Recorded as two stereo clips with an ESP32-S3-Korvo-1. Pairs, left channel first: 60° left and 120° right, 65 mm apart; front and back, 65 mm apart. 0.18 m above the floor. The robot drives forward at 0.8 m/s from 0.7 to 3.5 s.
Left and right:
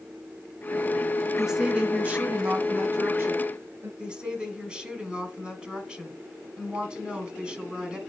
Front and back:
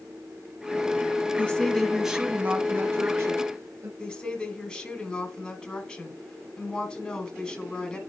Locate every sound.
1.4 s a woman speaking: 45° right, 1.1 m; by 3.9 s 160° right, 1.6 m
4.0 s a woman speaking: 65° right, 1.8 m